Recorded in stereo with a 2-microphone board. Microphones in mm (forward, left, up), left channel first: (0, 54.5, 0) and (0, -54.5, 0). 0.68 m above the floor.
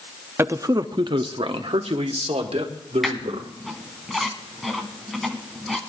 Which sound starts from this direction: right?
A man speaking, at 0.4 s.